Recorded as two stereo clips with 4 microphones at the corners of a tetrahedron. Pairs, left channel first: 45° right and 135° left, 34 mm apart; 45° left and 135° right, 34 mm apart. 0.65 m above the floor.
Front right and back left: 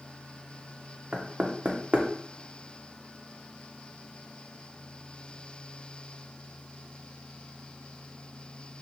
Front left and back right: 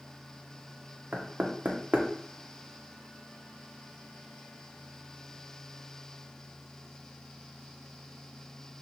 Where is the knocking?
170° right, 0.5 m.